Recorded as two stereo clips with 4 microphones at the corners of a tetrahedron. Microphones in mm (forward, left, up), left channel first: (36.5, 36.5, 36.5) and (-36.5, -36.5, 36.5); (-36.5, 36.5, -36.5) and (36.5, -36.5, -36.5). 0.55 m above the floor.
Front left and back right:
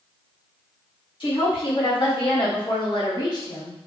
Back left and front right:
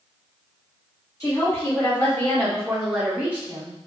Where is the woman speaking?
80° left, 1.4 m; by 3.8 s straight ahead, 0.8 m.